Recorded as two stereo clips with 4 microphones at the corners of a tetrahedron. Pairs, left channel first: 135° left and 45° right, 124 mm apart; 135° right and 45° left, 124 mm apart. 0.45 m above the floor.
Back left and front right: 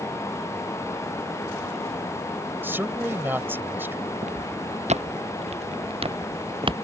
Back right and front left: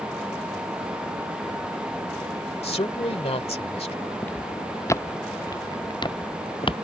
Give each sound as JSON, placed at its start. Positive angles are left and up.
{"t": 2.6, "sound": "a man speaking", "azimuth_deg": -115}
{"t": 4.2, "sound": "footsteps", "azimuth_deg": -60}